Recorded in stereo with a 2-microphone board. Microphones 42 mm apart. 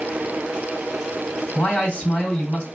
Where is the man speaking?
20° left (ahead or behind), 2.5 m.